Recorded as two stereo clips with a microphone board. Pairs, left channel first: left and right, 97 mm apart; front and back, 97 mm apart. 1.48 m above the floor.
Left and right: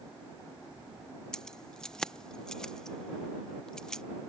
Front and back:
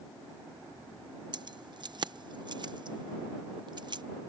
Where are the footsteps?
I don't hear footsteps.